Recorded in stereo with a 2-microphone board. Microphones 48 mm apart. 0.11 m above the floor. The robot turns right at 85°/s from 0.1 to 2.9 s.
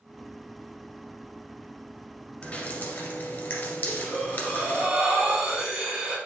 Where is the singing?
I don't hear singing.